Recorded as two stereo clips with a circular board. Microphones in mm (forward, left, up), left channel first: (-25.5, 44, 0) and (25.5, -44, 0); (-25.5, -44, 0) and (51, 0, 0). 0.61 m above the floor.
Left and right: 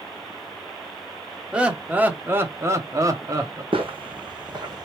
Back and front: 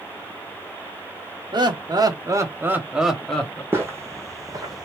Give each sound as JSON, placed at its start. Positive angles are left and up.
{"t": 1.5, "sound": "laughter", "azimuth_deg": 15, "distance_m": 1.1}
{"t": 3.7, "sound": "footsteps", "azimuth_deg": -35, "distance_m": 1.7}